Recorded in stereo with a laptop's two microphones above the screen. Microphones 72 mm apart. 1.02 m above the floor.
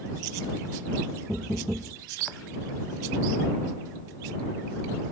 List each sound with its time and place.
1.3 s knocking: 10° right (ahead or behind)